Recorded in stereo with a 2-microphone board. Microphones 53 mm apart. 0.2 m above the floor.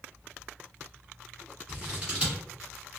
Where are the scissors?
25° right (ahead or behind), 1.9 m.